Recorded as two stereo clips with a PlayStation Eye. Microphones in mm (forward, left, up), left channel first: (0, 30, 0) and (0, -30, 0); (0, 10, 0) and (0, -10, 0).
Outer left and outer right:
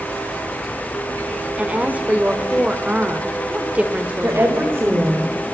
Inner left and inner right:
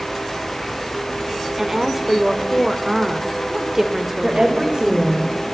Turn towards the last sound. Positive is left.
turn(degrees=-45)  # may be behind; listen again after turning